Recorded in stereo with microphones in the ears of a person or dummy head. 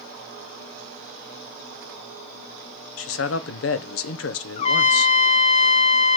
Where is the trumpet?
40° left (ahead or behind), 0.6 m.